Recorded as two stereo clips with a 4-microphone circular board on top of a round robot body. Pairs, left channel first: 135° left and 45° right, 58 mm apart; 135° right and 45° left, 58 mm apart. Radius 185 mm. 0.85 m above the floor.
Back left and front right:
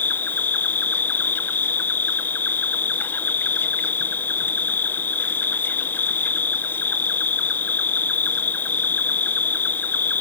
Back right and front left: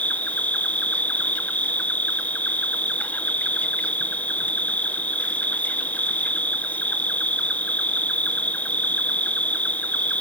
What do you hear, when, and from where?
0.0 s an insect: 175° left, 0.9 m